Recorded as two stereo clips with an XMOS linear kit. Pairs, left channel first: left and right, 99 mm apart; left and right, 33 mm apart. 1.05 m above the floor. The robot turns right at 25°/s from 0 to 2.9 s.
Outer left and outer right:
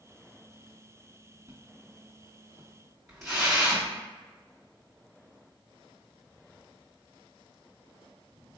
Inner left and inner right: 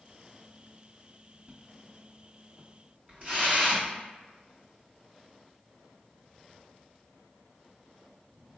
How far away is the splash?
About 1.6 m.